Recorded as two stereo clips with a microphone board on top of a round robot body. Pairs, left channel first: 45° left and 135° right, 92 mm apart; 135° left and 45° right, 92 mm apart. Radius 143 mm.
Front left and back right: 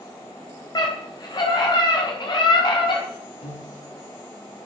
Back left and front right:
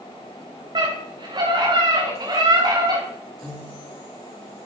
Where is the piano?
55° left, 7 m.